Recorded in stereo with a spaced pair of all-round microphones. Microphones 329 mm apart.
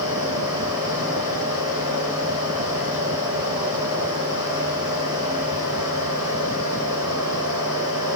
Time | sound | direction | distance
0.0 | a fan | 10° right (ahead or behind) | 2.0 m